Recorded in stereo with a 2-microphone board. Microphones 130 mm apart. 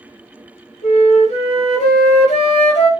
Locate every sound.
0.8 s a flute: 65° left (ahead or behind), 1.8 m